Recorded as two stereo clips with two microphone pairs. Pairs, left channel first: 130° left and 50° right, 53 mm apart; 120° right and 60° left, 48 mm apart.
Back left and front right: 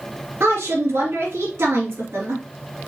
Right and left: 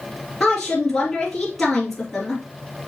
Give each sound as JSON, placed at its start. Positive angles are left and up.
{"t": 0.4, "sound": "a woman speaking", "azimuth_deg": -30, "distance_m": 3.5}